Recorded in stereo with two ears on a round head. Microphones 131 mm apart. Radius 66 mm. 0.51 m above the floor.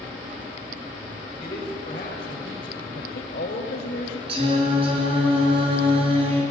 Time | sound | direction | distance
1.4 | a man speaking | 30° left (ahead or behind) | 3 m
3.0 | a woman speaking | 60° left (ahead or behind) | 1.9 m
4.3 | singing | 40° right (ahead or behind) | 4.5 m